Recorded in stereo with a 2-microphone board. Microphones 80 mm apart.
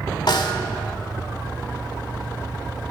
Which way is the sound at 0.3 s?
70° left (ahead or behind).